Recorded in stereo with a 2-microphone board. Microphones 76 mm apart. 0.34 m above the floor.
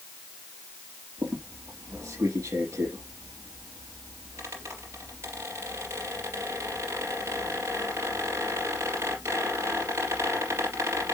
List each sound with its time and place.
1.2 s a squeak: 35° right (ahead or behind), 3.5 m